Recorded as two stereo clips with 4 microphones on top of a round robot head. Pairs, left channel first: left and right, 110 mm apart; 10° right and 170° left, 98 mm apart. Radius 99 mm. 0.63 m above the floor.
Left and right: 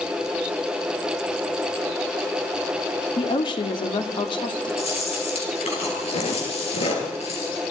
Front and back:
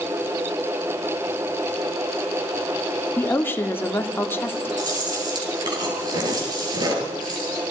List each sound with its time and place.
3.2 s a woman speaking: 55° left, 2 m
4.8 s chewing: 120° left, 8 m